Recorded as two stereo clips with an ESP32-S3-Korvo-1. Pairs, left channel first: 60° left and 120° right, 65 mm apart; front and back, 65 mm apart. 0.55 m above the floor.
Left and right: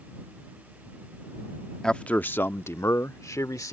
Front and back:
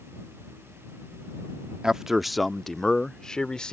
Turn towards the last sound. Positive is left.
turn(degrees=75)